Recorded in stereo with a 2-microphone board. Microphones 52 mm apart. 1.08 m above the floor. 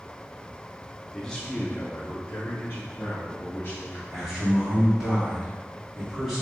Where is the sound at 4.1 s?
10° right (ahead or behind), 1.7 m.